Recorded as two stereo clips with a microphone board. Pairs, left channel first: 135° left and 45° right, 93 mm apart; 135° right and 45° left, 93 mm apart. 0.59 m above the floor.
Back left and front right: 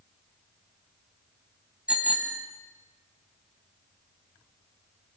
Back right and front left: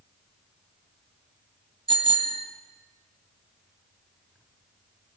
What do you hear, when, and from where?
1.9 s a bicycle bell: 30° left, 2.5 m